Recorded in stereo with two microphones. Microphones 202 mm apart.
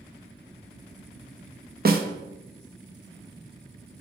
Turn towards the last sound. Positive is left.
turn(degrees=-50)  # may be behind; listen again after turning